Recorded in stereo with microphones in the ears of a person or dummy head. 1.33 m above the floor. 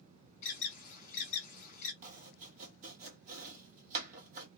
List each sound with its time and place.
0.4 s an alarm: 45° left (ahead or behind), 1.0 m
2.0 s chopping: 40° right (ahead or behind), 1.0 m